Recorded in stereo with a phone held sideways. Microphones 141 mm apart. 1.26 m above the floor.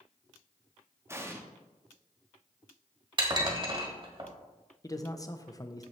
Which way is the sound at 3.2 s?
35° right (ahead or behind).